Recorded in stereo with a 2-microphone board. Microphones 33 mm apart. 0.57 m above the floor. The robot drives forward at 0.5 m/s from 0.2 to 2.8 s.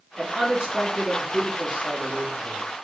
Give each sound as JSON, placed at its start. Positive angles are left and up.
{"t": 0.2, "sound": "a man speaking", "side_deg": -35, "distance_m": 1.6}